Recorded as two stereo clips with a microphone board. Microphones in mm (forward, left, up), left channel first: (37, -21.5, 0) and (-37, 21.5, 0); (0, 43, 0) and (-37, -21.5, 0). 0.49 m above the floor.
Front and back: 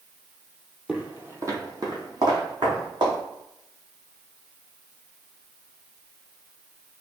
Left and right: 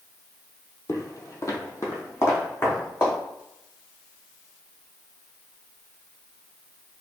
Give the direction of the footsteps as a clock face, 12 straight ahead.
9 o'clock.